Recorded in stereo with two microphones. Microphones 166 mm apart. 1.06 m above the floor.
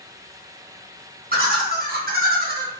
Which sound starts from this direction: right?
Laughter, at 1.3 s.